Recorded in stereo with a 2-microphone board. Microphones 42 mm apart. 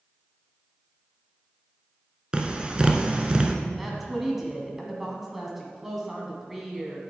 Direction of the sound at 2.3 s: 20° right (ahead or behind).